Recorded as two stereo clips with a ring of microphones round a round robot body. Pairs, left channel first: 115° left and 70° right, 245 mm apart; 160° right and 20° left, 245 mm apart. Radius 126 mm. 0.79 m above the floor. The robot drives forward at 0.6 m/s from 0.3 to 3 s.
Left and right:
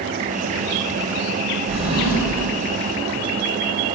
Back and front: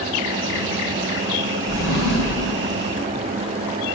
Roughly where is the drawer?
Behind right.